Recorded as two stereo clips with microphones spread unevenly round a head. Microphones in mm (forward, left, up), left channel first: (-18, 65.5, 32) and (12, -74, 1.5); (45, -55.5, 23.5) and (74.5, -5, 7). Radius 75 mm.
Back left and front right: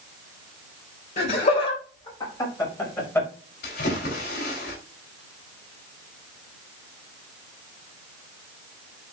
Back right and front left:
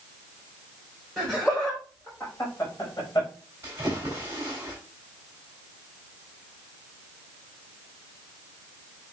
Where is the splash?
125° left, 4 m.